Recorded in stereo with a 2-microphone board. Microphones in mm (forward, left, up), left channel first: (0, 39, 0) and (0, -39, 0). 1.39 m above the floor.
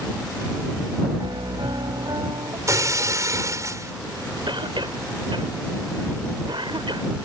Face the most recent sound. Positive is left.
turn(degrees=-85)